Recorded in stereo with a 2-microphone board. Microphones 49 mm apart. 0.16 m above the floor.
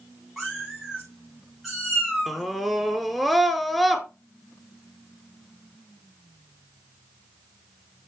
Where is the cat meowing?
5° right (ahead or behind), 5 m.